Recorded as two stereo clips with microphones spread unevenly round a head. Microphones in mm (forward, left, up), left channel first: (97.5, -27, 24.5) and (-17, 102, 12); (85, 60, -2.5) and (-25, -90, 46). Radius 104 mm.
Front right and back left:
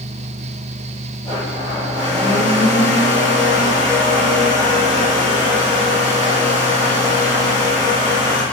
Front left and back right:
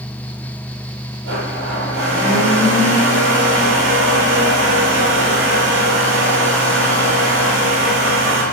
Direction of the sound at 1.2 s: 120° right.